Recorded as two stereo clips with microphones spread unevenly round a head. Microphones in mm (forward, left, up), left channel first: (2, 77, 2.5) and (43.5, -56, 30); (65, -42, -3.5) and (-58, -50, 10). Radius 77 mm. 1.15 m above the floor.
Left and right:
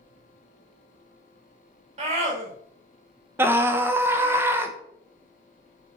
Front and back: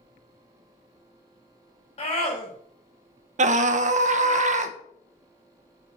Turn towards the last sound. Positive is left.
turn(degrees=-155)